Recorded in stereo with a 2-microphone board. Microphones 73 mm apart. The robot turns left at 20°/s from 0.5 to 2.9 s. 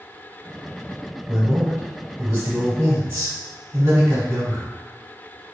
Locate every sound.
1.3 s a man speaking: 25° right (ahead or behind), 1.1 m